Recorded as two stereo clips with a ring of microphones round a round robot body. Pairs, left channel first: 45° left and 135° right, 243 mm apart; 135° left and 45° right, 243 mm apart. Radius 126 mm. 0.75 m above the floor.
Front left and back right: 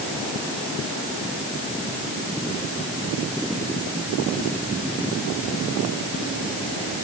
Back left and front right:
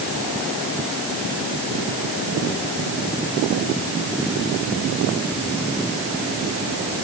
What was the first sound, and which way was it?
Only background noise.